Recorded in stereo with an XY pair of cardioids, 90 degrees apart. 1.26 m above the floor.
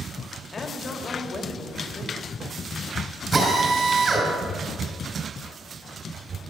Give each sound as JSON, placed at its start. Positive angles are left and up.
{"t": 0.5, "sound": "a woman speaking", "azimuth_deg": 45, "distance_m": 2.0}
{"t": 3.3, "sound": "a drill", "azimuth_deg": -50, "distance_m": 4.5}